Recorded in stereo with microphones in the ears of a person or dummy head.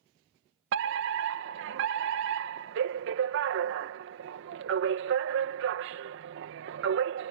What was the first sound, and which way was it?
A fire alarm, 65° right (ahead or behind).